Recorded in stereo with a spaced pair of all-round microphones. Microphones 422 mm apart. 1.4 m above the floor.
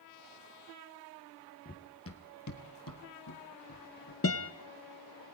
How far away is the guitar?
About 0.9 m.